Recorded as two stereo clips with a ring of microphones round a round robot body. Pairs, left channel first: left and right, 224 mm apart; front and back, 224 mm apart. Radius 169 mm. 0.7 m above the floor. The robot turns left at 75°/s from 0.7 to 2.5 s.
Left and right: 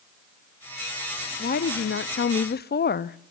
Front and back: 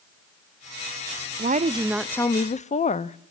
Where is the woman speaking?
140° left, 0.6 m; by 3.2 s 55° left, 0.6 m.